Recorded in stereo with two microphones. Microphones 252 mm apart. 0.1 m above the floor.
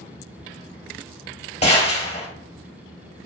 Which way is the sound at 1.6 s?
25° left (ahead or behind).